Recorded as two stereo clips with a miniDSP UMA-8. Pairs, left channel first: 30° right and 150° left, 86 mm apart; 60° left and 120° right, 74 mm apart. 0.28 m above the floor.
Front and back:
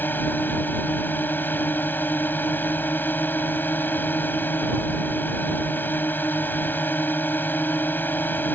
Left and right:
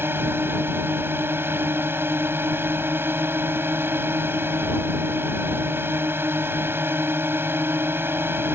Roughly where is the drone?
Right.